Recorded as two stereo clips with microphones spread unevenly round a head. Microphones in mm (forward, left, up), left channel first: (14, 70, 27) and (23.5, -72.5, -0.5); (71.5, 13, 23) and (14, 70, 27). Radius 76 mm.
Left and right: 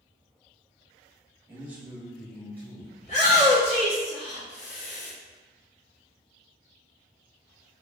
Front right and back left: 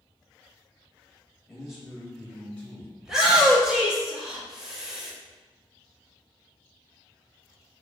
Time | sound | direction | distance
1.5 | a man speaking | 140° right | 1.1 m
3.0 | a shout | 50° left | 1.8 m